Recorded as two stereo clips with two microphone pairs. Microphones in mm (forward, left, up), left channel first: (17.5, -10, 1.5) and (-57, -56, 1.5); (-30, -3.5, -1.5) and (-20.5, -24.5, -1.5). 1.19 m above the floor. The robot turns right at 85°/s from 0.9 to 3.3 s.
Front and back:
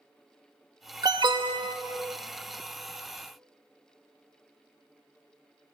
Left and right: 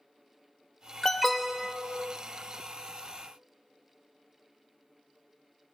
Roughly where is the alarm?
Behind.